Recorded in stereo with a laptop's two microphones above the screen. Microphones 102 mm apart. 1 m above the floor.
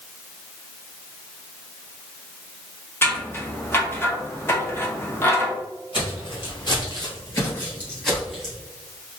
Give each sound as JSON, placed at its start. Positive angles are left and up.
{"t": 3.0, "sound": "scissors", "side_deg": 25, "distance_m": 0.6}
{"t": 5.9, "sound": "footsteps", "side_deg": 55, "distance_m": 1.7}